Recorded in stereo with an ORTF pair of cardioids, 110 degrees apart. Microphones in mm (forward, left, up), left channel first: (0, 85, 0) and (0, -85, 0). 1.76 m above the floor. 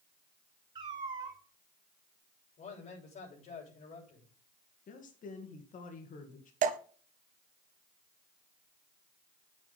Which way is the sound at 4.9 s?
50° left.